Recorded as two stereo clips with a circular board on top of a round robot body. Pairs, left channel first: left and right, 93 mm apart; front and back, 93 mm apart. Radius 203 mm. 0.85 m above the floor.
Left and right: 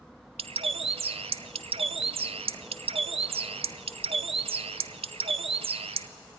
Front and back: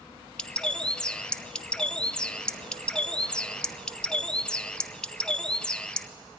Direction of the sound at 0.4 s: 80° right.